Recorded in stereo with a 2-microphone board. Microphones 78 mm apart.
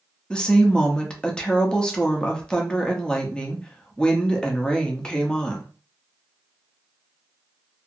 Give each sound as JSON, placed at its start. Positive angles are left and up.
{"t": 0.3, "sound": "a woman speaking", "side_deg": 10, "distance_m": 0.6}